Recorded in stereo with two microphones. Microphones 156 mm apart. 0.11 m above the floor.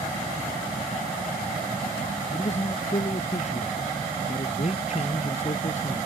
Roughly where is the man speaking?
Left.